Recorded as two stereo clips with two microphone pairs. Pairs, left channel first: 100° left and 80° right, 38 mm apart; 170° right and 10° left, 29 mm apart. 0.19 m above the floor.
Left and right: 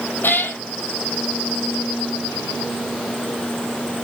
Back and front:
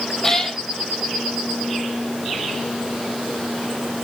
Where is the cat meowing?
115° left, 1.0 m.